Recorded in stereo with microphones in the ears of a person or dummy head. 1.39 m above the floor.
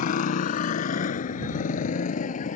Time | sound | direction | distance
0.0 | a motorcycle | 45° left (ahead or behind) | ?